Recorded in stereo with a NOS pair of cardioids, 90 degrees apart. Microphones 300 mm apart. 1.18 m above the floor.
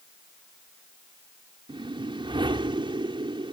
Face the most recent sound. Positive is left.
turn(degrees=-15)